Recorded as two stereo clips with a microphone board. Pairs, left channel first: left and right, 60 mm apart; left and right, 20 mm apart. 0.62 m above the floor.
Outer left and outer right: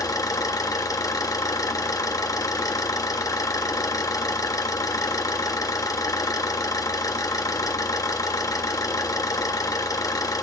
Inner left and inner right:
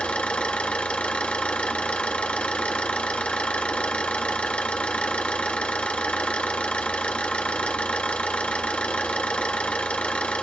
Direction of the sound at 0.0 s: 75° left (ahead or behind).